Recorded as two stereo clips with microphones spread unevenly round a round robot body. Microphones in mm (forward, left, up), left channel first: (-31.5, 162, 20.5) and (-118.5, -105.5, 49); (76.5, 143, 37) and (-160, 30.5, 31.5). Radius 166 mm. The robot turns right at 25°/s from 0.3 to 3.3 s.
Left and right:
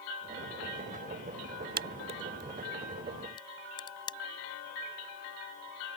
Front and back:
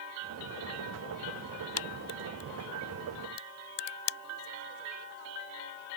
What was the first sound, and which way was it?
A crack, 45° right.